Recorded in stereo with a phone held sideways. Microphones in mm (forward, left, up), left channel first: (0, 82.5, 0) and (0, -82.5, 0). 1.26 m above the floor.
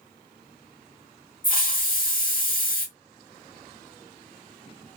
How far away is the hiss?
About 0.9 m.